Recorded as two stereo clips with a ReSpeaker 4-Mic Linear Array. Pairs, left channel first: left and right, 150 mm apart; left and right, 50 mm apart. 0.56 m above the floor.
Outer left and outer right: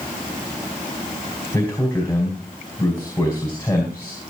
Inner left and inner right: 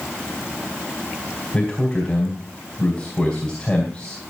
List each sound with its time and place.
1.5 s a man speaking: 15° left (ahead or behind), 3.5 m